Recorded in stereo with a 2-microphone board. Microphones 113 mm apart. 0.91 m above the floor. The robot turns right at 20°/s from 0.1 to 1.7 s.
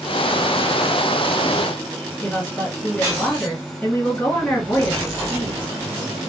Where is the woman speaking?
10° left (ahead or behind), 2 m.